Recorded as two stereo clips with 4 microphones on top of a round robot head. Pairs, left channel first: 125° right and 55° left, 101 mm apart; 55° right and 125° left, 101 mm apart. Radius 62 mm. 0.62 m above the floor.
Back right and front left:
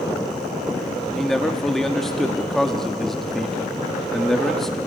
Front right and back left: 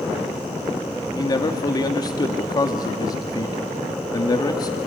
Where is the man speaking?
40° right, 1.4 m.